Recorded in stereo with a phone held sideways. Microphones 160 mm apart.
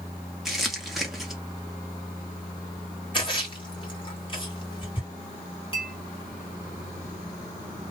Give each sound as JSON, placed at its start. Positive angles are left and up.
{"t": 0.5, "sound": "crumpling", "side_deg": 0, "distance_m": 0.9}
{"t": 3.1, "sound": "a splash", "side_deg": 30, "distance_m": 1.3}
{"t": 5.7, "sound": "a clink", "side_deg": 35, "distance_m": 1.3}